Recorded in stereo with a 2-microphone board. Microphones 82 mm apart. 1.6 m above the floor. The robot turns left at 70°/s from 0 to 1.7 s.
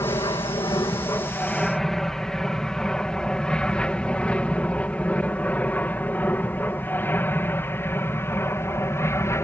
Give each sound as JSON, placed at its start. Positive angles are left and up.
{"t": 0.0, "sound": "an aircraft", "side_deg": 50}